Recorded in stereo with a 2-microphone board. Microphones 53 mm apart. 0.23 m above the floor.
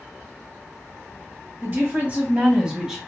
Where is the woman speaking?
45° right (ahead or behind), 1.9 m; by 3.0 s 5° right (ahead or behind), 1.5 m.